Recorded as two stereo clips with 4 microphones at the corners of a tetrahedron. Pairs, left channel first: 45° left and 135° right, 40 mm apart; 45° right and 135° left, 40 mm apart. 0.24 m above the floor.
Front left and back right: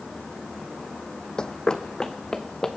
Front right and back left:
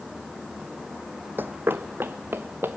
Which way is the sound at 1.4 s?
115° left.